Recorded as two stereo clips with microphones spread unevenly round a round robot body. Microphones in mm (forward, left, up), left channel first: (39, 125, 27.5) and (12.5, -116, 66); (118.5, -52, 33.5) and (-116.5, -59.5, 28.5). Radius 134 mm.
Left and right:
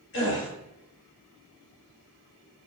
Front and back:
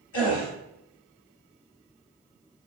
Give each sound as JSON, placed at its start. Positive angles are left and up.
{"t": 0.1, "sound": "a gasp", "azimuth_deg": 35, "distance_m": 1.9}